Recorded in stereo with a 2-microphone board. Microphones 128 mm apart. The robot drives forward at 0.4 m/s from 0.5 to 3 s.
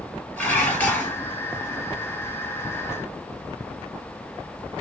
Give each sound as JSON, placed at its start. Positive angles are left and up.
{"t": 0.4, "sound": "dishes clattering", "side_deg": 15, "distance_m": 2.0}